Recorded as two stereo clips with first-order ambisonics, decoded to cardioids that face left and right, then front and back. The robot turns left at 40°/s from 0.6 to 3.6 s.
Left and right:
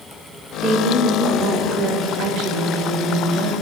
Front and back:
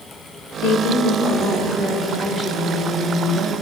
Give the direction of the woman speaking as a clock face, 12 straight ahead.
12 o'clock.